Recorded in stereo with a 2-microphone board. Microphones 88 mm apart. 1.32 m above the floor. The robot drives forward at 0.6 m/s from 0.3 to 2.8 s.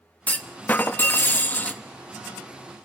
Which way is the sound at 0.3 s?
15° left (ahead or behind).